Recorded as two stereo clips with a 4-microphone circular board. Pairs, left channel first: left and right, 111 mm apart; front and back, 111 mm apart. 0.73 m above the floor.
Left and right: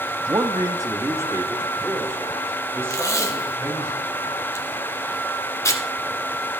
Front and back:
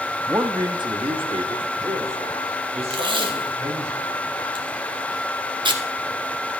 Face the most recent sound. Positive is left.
turn(degrees=150)